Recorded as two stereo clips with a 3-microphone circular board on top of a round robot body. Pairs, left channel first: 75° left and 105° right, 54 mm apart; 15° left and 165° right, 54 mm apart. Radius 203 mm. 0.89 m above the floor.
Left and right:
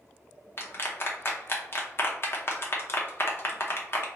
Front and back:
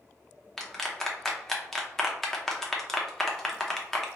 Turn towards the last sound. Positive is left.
turn(degrees=95)